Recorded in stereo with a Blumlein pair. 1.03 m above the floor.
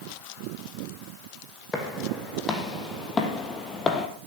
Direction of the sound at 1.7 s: 15° left.